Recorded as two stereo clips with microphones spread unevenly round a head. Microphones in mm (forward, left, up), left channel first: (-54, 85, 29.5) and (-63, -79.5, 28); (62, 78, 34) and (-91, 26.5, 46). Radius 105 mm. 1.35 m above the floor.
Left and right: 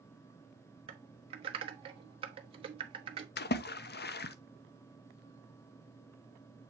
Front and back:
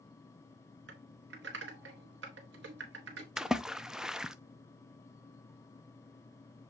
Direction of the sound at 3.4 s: 110° left.